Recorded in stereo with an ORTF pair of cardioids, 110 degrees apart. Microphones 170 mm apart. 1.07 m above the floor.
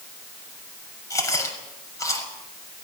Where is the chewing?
20° left, 6 m.